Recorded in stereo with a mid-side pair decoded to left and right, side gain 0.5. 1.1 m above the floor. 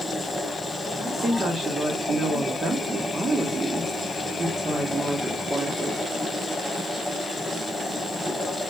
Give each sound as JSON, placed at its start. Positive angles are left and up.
{"t": 0.0, "sound": "a machine running", "azimuth_deg": 10, "distance_m": 5.5}
{"t": 1.0, "sound": "a woman speaking", "azimuth_deg": -30, "distance_m": 1.8}